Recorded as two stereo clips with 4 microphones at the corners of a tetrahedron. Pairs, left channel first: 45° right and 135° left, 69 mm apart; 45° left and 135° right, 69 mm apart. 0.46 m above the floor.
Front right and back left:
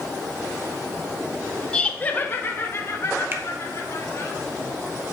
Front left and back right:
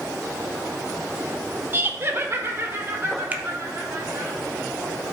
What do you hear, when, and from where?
1.7 s laughter: 110° right, 0.8 m; by 4.3 s 85° right, 3.5 m
3.3 s a finger snap: 170° left, 0.8 m